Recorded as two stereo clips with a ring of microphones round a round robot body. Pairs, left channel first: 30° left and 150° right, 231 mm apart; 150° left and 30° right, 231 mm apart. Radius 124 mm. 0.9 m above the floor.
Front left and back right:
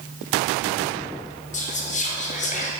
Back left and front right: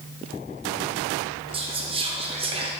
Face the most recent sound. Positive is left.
turn(degrees=15)